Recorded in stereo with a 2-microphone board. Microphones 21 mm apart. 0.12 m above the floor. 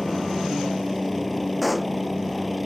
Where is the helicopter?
10° left (ahead or behind); by 2.7 s 5° left (ahead or behind).